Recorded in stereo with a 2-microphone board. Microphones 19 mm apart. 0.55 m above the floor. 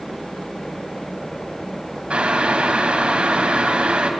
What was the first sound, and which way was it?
Boiling, 70° right (ahead or behind).